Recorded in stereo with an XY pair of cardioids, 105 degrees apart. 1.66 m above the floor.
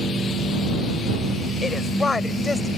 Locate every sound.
1.6 s a woman speaking: 30° left; by 2.7 s 25° left